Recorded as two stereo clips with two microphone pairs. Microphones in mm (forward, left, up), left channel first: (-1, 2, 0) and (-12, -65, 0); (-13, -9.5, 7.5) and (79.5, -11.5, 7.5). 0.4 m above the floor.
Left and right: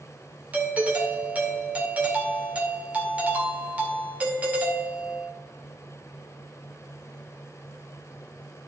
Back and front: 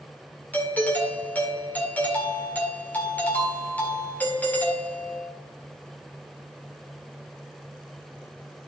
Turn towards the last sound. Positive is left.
turn(degrees=-135)